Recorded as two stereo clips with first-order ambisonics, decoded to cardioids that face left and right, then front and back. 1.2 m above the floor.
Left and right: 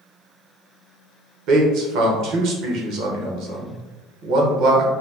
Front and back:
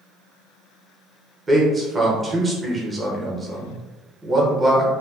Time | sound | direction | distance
1.5 | a man speaking | 105° right | 1.0 m